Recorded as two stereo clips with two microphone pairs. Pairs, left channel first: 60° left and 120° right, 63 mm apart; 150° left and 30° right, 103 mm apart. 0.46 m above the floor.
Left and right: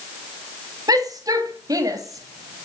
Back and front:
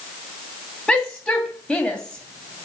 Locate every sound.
0.9 s a shout: 130° right, 3 m